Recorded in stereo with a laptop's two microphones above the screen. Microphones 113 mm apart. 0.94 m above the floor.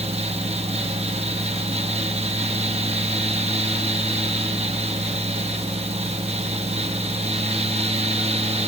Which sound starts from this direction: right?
A fan, at 0.0 s.